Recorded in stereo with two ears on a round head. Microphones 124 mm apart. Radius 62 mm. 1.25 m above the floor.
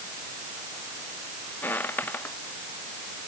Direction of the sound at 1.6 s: 15° left (ahead or behind).